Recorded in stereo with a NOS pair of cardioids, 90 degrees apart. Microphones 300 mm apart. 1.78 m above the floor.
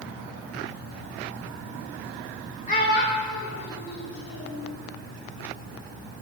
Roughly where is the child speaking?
Ahead left.